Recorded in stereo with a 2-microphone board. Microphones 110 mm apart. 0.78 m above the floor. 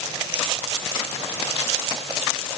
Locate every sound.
Only background noise.